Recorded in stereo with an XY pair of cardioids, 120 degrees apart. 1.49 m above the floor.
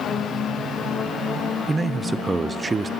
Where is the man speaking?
20° right, 0.6 m.